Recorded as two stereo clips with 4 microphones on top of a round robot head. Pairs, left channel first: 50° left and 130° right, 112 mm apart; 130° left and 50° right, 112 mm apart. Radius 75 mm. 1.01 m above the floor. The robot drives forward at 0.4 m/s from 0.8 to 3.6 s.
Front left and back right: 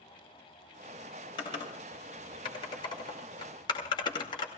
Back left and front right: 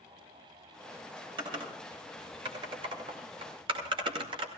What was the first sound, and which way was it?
Typing on a keyboard, straight ahead.